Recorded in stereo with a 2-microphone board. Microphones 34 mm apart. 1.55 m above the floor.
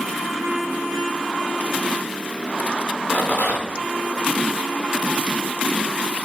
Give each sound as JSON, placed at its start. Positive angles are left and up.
{"t": 3.1, "sound": "a rattle", "side_deg": 55, "distance_m": 3.5}